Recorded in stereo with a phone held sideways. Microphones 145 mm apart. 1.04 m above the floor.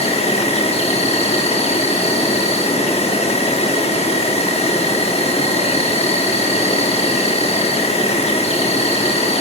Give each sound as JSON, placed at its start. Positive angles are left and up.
{"t": 0.0, "sound": "an insect", "side_deg": 45, "distance_m": 0.8}